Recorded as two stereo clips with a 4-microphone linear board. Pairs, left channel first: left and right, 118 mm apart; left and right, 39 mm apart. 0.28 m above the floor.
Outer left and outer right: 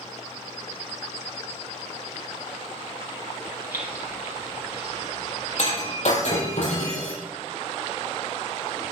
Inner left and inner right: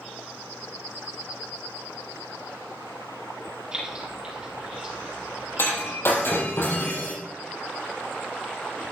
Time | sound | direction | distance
3.7 | keys jangling | 20° right (ahead or behind) | 6 m
5.6 | breaking glass | 85° left | 5.5 m